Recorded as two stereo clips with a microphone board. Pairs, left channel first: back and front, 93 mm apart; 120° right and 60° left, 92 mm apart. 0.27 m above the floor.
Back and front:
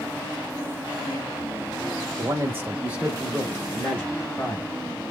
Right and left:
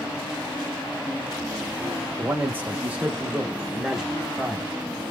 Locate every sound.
2.2 s a man speaking: 15° left, 1.3 m; by 4.7 s 155° left, 1.3 m